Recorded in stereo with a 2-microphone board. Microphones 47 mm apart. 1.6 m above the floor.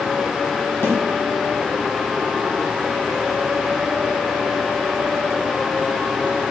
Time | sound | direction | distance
0.8 | a snare drum | 55° left (ahead or behind) | 2 m